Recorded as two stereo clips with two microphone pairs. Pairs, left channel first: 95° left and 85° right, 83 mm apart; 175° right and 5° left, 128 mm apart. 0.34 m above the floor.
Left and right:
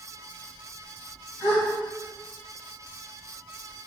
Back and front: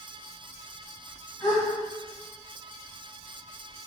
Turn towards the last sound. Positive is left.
turn(degrees=140)